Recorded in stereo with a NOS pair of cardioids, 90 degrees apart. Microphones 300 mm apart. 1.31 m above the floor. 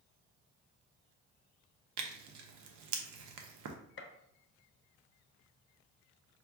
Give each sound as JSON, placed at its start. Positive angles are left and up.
{"t": 2.0, "sound": "tearing paper", "azimuth_deg": -70, "distance_m": 0.7}
{"t": 4.0, "sound": "a gunshot", "azimuth_deg": 45, "distance_m": 0.6}